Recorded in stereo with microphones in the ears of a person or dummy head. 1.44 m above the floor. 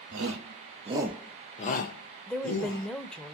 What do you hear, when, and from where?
0.1 s a shout: 65° right (ahead or behind), 0.9 m; by 2.9 s 60° left (ahead or behind), 1.6 m
2.3 s a woman speaking: 5° left (ahead or behind), 0.6 m